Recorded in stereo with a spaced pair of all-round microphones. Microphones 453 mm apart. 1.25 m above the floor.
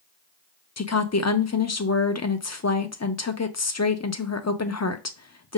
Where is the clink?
I don't hear a clink.